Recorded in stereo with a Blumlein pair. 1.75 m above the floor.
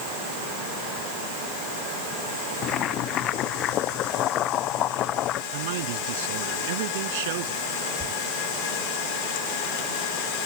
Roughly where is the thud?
Ahead right.